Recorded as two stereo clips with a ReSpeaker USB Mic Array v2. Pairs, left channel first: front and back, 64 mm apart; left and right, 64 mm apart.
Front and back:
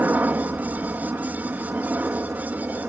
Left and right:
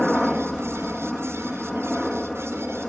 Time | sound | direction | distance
0.0 | a helicopter | 175° left | ?